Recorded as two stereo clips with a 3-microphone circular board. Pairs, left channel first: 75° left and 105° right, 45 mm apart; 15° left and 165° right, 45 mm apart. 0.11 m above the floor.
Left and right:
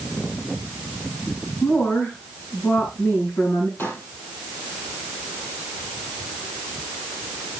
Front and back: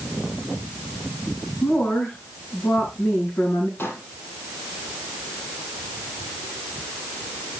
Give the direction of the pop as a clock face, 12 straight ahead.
11 o'clock.